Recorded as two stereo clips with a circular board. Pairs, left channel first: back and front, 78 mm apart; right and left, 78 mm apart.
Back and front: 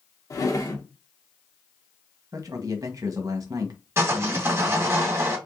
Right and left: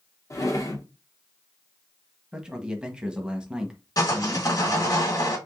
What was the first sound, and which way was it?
A drawer, 135° right.